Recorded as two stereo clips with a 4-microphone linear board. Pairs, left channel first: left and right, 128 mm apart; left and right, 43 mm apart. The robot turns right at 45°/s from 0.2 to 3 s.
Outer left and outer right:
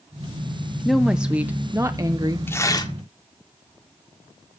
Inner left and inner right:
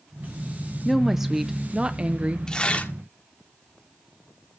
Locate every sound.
0.8 s a woman speaking: 175° left, 0.7 m; by 2.4 s 115° right, 0.7 m
2.5 s tearing paper: 15° left (ahead or behind), 1.8 m; by 2.9 s 35° left (ahead or behind), 1.8 m